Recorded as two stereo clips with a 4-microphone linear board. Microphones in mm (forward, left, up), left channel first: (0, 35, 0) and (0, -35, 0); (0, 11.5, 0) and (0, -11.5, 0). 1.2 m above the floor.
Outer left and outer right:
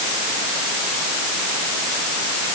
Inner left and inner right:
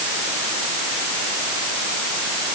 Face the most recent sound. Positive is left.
No sound to turn to.